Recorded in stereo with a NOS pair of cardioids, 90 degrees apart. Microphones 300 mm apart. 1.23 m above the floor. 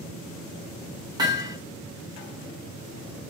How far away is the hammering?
About 1.4 m.